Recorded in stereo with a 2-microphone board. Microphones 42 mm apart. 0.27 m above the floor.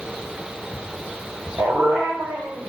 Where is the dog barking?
75° right (ahead or behind), 7.5 m.